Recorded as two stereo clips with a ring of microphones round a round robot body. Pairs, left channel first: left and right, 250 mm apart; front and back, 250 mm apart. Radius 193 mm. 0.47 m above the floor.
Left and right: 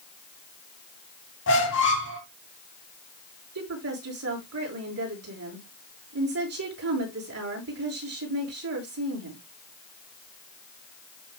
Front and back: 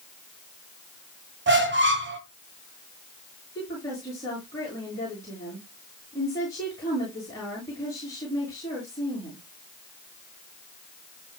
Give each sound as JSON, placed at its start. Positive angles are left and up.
{"t": 1.5, "sound": "a squeak", "azimuth_deg": 140, "distance_m": 1.8}
{"t": 3.5, "sound": "a woman speaking", "azimuth_deg": -80, "distance_m": 7.5}